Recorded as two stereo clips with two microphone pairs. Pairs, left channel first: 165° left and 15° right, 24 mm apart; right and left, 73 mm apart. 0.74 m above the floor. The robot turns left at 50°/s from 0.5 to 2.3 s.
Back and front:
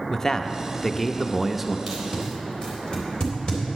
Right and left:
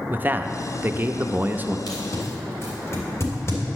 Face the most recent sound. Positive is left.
turn(degrees=-140)